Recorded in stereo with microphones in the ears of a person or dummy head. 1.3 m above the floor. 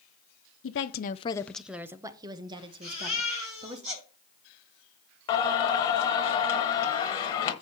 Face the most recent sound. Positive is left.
turn(degrees=25)  # may be behind; listen again after turning